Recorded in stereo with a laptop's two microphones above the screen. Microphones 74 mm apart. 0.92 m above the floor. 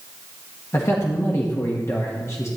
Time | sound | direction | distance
0.7 | a man speaking | 40° left (ahead or behind) | 1.2 m